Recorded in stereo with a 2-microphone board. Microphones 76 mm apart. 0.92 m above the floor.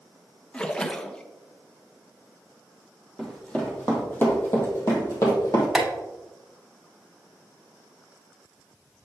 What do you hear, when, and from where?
0.5 s a splash: 15° left (ahead or behind), 0.5 m
3.2 s running footsteps: 10° left (ahead or behind), 2 m; by 5.7 s 50° left (ahead or behind), 2.5 m
5.8 s tapping: centre (ahead or behind), 1.7 m